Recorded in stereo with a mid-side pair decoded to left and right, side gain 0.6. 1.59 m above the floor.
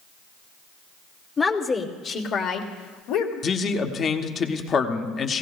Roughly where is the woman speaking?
Ahead left.